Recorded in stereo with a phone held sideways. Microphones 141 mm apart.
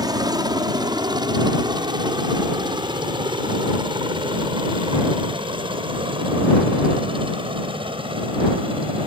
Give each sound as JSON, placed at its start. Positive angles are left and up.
{"t": 0.0, "sound": "a helicopter", "side_deg": -25}